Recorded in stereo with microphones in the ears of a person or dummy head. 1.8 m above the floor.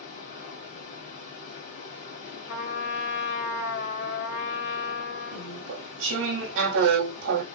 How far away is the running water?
About 1.7 m.